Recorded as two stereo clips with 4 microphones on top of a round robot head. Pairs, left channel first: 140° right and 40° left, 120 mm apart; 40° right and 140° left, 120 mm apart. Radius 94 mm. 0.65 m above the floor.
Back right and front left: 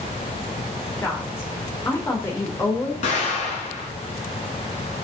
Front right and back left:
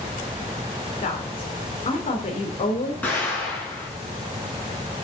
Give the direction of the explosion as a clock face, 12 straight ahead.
4 o'clock.